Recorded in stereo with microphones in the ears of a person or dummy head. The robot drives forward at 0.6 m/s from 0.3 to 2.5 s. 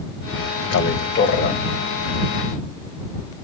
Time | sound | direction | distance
0.7 | a man speaking | 75° left (ahead or behind) | 0.7 m